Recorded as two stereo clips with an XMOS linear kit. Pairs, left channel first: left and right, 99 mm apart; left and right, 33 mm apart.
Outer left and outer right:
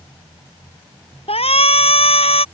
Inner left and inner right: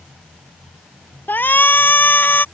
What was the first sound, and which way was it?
A shout, 75° left (ahead or behind).